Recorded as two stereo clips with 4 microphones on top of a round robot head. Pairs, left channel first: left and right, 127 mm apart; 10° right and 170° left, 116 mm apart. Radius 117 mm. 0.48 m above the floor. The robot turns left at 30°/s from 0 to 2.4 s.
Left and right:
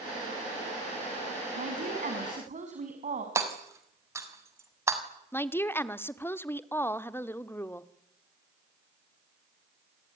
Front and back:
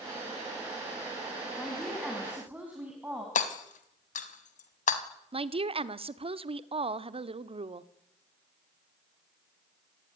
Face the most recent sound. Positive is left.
turn(degrees=160)